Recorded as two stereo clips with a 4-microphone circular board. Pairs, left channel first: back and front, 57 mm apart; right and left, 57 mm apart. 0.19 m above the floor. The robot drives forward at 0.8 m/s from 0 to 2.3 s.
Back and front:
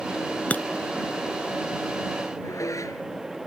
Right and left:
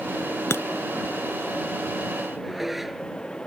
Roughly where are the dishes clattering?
Behind.